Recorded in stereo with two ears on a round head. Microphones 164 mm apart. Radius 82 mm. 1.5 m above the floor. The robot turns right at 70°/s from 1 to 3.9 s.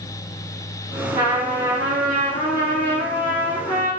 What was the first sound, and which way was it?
A trumpet, 25° right.